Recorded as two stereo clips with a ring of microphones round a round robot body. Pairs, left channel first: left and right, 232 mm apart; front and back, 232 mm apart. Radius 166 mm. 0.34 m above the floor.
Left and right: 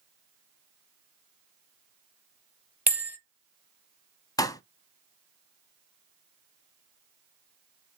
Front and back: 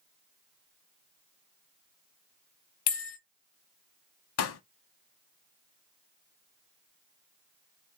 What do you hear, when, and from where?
2.9 s a bell: 5° right, 1.1 m
4.4 s a pop: 15° left, 0.6 m